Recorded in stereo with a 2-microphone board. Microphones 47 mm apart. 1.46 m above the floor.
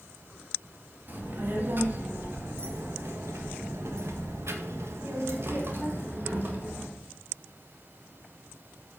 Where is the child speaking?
45° right (ahead or behind), 2 m.